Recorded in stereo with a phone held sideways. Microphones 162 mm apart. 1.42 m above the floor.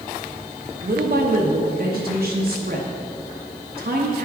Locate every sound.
0.8 s a woman speaking: 75° right (ahead or behind), 0.8 m